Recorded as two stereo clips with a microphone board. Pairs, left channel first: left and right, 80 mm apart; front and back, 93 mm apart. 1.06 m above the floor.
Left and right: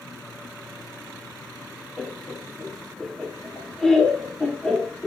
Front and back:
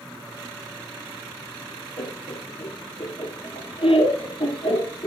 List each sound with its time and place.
2.0 s laughter: 5° left, 3 m